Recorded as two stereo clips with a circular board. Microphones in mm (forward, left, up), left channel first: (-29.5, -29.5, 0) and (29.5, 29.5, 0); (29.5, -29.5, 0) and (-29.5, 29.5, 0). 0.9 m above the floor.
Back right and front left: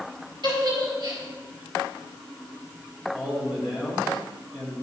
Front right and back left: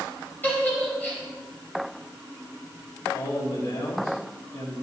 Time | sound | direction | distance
0.4 | a giggle | 25° left | 4.5 m
3.1 | a man speaking | 35° right | 4.5 m